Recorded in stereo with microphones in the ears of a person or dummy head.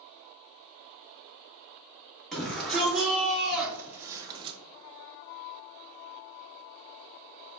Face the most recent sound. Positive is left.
turn(degrees=-30)  # may be behind; listen again after turning